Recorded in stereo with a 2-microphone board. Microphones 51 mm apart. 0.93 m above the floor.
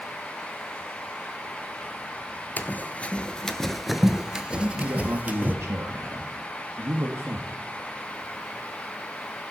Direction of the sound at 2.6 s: 40° left (ahead or behind).